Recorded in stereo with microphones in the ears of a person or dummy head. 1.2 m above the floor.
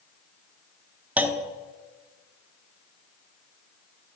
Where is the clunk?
10° right (ahead or behind), 0.7 m.